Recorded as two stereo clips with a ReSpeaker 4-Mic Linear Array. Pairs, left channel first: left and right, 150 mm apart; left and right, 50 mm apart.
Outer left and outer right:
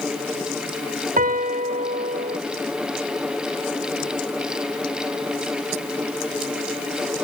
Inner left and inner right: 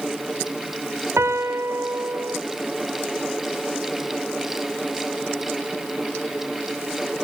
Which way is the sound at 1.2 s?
70° right (ahead or behind).